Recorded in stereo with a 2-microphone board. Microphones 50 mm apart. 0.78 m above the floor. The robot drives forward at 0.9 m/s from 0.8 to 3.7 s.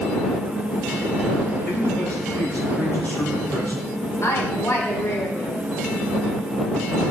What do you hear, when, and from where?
1.6 s a man speaking: 35° left (ahead or behind), 3.5 m; by 3.8 s 60° left (ahead or behind), 2.5 m
4.2 s a woman speaking: 75° left (ahead or behind), 2.5 m